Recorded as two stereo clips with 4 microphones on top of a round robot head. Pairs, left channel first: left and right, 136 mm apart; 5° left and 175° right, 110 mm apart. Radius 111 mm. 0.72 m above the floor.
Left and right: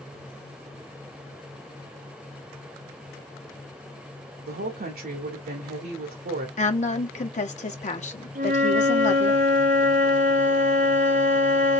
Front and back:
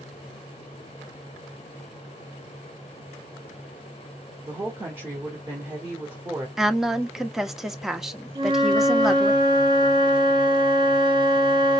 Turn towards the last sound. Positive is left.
turn(degrees=-125)